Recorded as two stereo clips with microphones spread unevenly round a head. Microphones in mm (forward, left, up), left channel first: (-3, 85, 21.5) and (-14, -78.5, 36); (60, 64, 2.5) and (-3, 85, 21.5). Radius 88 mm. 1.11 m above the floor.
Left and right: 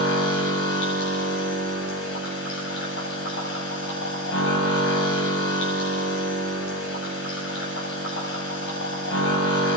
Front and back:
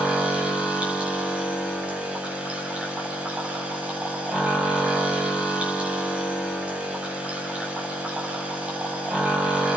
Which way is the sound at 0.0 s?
90° left.